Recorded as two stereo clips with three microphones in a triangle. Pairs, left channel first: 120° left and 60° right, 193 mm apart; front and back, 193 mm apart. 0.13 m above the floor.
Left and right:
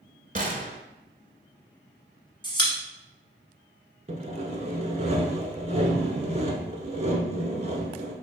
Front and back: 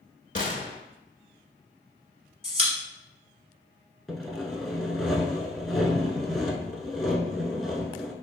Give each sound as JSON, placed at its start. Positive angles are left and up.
{"t": 0.3, "sound": "a gunshot", "azimuth_deg": -30, "distance_m": 0.6}
{"t": 2.4, "sound": "a pop", "azimuth_deg": 160, "distance_m": 1.2}
{"t": 4.1, "sound": "sawing", "azimuth_deg": -90, "distance_m": 0.7}